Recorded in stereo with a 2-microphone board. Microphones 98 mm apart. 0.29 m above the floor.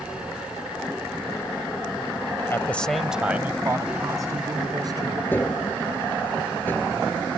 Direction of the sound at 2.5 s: 25° left (ahead or behind).